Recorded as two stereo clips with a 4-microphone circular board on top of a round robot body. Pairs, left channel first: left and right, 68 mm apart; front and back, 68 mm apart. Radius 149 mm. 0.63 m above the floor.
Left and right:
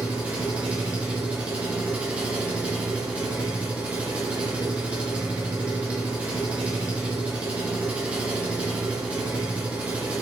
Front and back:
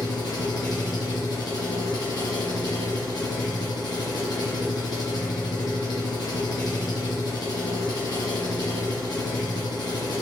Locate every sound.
0.0 s an engine running: 20° right, 2.5 m